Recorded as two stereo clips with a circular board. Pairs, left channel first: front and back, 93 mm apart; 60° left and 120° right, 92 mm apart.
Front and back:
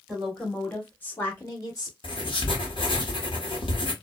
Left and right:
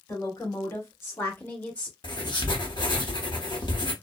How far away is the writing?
About 0.8 m.